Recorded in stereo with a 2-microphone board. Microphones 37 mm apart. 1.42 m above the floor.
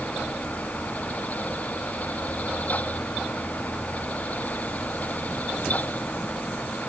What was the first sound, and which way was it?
Only background noise.